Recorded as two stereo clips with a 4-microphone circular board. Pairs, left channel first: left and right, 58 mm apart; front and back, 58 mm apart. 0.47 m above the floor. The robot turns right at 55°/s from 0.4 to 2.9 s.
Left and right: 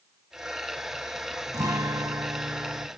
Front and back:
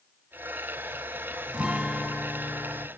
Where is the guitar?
115° right, 0.7 m; by 2.9 s 40° right, 0.7 m.